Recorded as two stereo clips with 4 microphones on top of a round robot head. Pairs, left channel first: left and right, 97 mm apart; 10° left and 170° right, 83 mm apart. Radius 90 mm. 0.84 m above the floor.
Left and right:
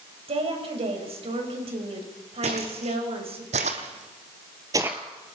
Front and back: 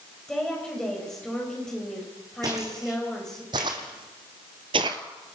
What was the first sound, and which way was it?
A woman speaking, 75° right.